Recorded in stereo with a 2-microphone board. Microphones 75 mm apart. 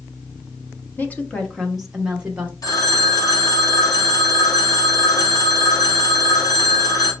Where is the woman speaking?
25° left (ahead or behind), 0.9 m; by 2.5 s 20° right (ahead or behind), 1.0 m.